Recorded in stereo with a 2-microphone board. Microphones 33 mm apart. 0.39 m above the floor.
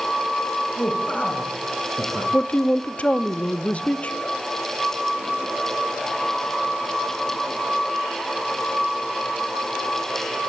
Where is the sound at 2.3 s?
40° left (ahead or behind), 0.9 m.